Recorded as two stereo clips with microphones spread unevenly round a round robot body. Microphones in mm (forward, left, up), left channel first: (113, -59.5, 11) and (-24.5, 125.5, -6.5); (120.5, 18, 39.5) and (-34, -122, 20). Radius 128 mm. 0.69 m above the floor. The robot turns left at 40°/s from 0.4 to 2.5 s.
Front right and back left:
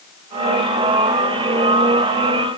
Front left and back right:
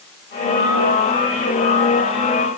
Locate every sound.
Only background noise.